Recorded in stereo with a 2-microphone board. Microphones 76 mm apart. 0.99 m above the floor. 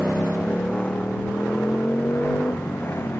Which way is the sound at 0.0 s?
10° left (ahead or behind).